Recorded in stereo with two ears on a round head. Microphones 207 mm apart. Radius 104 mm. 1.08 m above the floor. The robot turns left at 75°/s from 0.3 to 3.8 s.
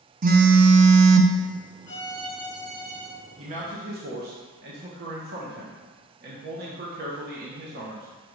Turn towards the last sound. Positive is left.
turn(degrees=-65)